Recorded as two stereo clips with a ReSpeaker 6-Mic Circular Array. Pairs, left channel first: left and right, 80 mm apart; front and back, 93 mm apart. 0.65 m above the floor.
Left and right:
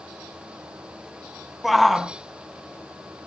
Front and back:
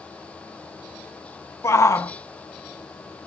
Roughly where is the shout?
Ahead.